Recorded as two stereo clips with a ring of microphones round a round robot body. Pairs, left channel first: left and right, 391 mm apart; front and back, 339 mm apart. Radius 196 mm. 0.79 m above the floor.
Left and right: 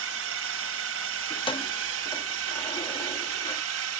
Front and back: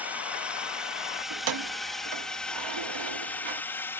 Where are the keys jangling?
165° left.